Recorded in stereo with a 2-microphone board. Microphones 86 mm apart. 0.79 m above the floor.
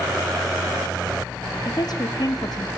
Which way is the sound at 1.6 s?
50° left (ahead or behind).